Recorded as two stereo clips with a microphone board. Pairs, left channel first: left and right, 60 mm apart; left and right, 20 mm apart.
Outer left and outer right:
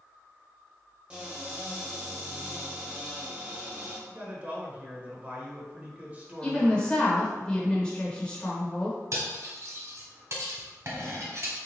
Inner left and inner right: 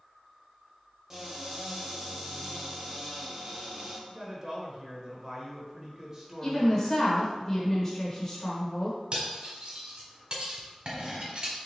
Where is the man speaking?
25° right (ahead or behind), 1.0 m.